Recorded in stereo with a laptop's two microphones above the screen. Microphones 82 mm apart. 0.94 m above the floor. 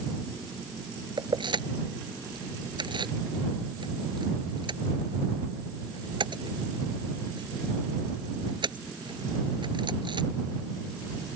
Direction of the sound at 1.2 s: 70° right (ahead or behind).